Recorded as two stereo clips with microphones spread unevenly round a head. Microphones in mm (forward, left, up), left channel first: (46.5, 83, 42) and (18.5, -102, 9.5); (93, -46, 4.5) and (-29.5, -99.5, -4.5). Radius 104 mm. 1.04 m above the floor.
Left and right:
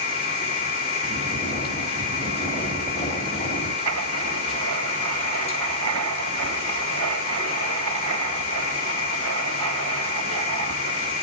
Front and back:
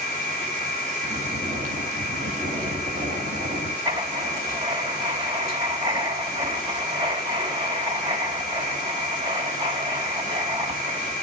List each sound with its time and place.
0.0 s a machine running: 145° left, 1.9 m
1.0 s snoring: 150° left, 2 m
3.9 s writing: 105° right, 3 m